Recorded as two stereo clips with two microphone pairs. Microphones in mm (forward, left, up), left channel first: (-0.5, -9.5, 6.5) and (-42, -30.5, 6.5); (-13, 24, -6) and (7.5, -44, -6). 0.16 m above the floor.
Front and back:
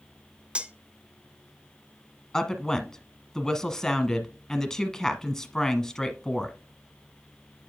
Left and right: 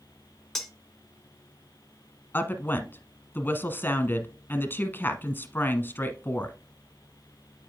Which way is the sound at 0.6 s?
175° right.